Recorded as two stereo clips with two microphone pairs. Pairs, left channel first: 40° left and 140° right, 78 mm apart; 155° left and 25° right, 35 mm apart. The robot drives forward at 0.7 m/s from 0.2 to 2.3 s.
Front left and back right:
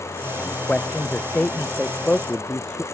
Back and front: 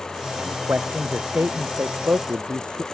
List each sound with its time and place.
0.4 s a man speaking: 35° right